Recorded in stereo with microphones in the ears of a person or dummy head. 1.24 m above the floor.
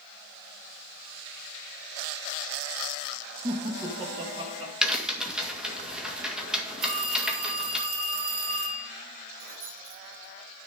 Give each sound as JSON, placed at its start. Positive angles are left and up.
{"t": 3.4, "sound": "laughter", "side_deg": -25, "distance_m": 1.2}
{"t": 4.8, "sound": "a crack", "side_deg": 0, "distance_m": 1.8}
{"t": 6.8, "sound": "a phone ringing", "side_deg": -80, "distance_m": 6.5}
{"t": 9.4, "sound": "keys jangling", "side_deg": -50, "distance_m": 5.0}